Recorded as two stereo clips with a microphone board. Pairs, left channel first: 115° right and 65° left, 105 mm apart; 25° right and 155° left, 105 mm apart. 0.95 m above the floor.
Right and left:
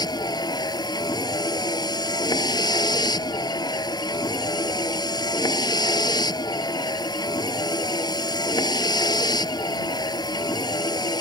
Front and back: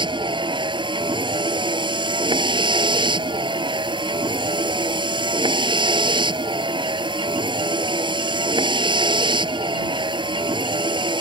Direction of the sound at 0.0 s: 165° right.